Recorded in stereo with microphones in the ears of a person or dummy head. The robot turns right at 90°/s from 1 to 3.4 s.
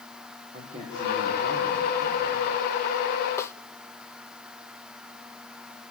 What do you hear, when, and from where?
0.5 s a man speaking: 135° right, 5.5 m; by 2.5 s 5° right, 5.5 m
3.4 s a snare drum: 15° left (ahead or behind), 0.8 m